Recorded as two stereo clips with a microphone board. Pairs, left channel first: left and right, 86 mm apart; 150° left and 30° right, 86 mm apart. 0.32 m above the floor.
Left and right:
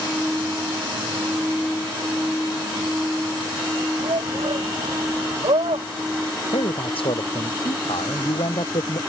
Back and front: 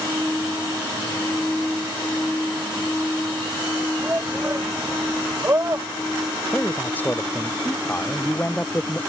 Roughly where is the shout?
Right.